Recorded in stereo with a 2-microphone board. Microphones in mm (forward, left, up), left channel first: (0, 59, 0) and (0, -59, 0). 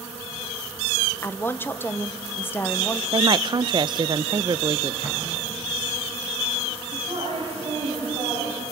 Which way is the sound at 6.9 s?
50° right (ahead or behind).